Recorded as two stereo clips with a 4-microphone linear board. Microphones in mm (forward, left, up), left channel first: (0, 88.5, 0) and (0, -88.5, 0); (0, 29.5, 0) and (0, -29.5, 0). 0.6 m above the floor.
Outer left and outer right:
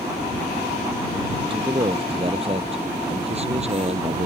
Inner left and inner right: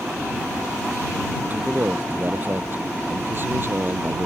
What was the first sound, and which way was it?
A man speaking, 30° right (ahead or behind).